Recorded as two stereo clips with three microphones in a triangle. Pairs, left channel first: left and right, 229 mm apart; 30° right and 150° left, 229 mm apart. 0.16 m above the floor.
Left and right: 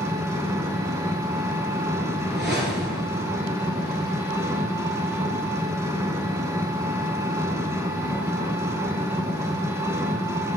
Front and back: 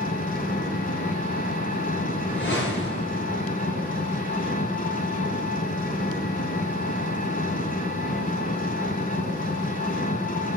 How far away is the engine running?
About 0.9 m.